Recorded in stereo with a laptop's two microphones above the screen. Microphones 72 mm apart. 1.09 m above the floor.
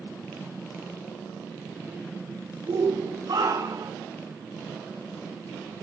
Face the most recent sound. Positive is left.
turn(degrees=-70)  # may be behind; listen again after turning